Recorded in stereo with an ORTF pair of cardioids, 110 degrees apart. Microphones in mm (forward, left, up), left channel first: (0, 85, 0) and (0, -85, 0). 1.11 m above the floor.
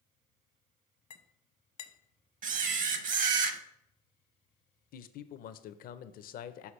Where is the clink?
50° left, 0.7 m.